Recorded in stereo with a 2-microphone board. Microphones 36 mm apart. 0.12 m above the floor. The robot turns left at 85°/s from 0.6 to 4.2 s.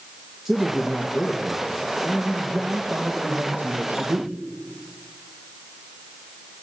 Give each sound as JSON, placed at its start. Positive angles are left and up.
{"t": 0.5, "sound": "a man speaking", "azimuth_deg": -170, "distance_m": 3.0}